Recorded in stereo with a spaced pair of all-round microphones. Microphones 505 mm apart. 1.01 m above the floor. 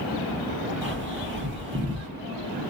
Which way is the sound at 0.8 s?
20° right (ahead or behind).